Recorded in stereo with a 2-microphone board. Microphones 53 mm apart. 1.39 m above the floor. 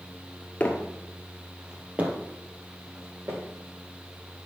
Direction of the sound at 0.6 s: 30° left (ahead or behind).